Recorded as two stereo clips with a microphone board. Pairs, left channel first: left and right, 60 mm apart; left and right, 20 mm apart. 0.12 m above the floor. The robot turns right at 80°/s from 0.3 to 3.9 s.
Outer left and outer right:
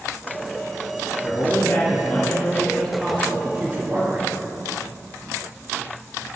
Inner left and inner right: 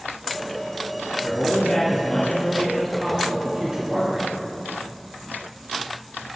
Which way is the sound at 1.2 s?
10° left (ahead or behind).